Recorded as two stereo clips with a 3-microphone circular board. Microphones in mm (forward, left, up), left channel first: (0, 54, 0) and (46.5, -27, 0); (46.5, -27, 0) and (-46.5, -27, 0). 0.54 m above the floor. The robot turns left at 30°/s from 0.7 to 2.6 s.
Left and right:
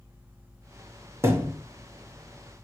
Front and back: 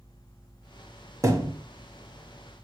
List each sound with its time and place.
1.2 s a thud: 120° right, 0.9 m; by 1.5 s 130° right, 0.9 m